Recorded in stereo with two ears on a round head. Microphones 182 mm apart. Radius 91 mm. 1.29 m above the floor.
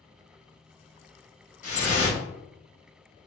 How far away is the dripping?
About 1.3 m.